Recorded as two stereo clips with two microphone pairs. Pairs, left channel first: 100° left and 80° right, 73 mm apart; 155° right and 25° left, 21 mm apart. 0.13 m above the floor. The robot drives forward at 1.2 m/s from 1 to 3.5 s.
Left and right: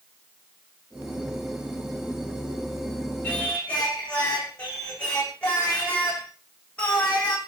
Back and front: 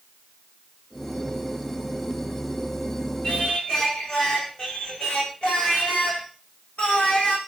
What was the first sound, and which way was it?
Singing, 170° left.